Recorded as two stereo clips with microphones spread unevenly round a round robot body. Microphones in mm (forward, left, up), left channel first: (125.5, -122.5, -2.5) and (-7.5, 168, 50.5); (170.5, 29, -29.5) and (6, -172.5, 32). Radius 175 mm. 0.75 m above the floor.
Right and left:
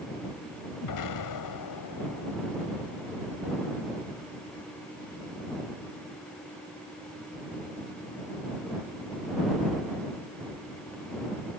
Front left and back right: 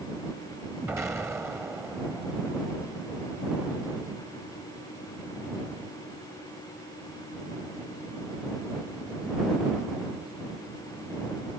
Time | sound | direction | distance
0.8 | an explosion | 45° right | ?